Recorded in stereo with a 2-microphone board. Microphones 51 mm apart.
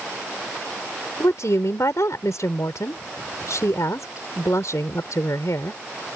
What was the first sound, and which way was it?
A woman speaking, 75° left (ahead or behind).